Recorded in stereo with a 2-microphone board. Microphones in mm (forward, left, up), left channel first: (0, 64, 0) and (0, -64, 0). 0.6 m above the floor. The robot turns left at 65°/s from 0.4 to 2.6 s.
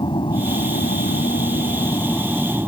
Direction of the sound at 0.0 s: 40° left (ahead or behind).